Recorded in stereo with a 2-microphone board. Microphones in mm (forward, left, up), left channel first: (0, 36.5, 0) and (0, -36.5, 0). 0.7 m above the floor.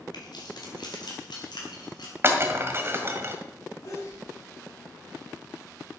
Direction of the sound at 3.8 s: 60° left (ahead or behind).